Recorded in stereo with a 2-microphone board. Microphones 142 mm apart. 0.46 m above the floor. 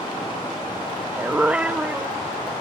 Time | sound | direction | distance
1.2 | a dog barking | 10° right (ahead or behind) | ?